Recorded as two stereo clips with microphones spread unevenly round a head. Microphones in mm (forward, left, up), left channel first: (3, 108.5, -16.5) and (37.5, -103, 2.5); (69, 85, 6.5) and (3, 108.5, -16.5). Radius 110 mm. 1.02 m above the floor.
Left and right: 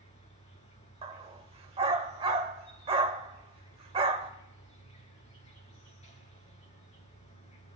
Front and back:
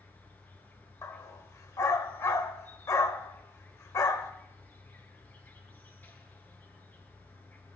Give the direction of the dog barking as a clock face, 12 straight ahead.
1 o'clock.